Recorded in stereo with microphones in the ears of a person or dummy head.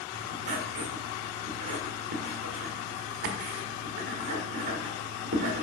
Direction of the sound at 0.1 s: 50° right (ahead or behind).